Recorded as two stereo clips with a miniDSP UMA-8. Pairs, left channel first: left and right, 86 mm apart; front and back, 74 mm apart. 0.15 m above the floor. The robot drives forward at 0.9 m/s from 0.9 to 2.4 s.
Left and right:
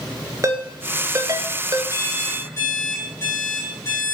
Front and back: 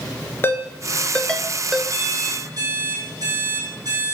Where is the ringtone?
50° right, 1.0 m; by 1.8 s 110° right, 0.9 m.